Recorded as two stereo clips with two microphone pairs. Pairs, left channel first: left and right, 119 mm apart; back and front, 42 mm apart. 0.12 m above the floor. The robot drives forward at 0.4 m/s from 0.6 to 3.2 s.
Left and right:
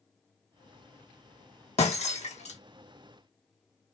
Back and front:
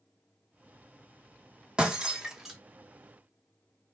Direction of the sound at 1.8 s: 65° left.